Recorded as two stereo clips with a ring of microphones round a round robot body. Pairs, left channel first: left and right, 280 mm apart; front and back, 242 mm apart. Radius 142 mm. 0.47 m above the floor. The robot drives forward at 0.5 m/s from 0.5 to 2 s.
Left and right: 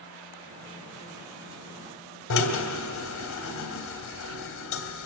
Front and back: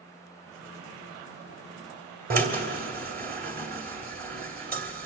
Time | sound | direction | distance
2.3 | a drill | 130° left | 2.5 m